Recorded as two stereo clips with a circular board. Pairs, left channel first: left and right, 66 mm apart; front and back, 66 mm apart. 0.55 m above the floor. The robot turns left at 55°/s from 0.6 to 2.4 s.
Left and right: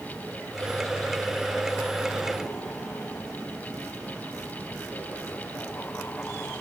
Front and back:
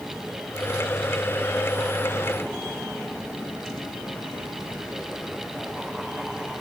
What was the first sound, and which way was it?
Only background noise.